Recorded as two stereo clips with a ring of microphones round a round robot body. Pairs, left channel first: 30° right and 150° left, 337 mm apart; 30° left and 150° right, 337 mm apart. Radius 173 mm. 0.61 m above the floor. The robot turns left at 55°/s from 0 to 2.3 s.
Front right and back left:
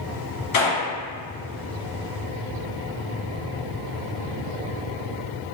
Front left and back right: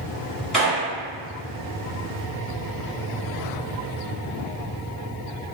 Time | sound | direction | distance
0.5 | a gunshot | 60° right | 1.7 m